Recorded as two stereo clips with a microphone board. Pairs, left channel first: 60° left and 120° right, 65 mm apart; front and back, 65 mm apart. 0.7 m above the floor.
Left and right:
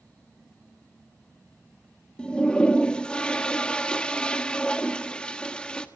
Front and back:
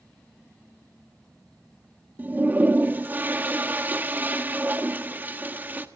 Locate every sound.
2.2 s a toilet flushing: 130° left, 1.3 m